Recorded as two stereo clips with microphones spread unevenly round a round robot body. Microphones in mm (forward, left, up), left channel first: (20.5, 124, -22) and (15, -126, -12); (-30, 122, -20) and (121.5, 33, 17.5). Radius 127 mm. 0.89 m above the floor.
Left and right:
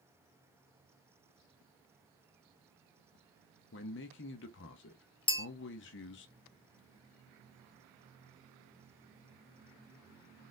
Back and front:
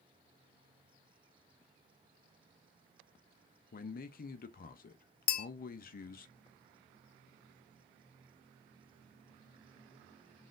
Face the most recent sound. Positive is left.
turn(degrees=150)